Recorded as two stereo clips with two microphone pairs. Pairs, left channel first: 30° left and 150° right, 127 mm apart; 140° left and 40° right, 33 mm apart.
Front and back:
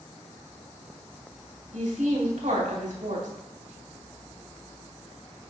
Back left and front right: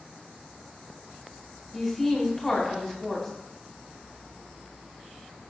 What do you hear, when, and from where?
1.7 s a woman speaking: 135° right, 2 m